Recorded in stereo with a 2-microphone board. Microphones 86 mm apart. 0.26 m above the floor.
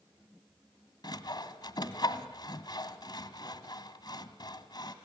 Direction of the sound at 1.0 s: 55° left (ahead or behind).